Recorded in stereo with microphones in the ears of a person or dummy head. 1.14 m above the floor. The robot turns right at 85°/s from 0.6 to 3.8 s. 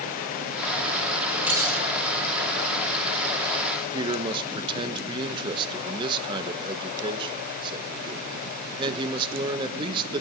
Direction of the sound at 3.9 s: 25° right (ahead or behind).